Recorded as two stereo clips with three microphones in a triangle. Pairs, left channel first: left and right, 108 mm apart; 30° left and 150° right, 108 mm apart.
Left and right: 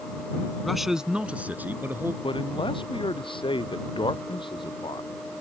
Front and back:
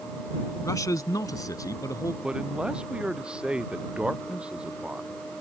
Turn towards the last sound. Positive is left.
turn(degrees=130)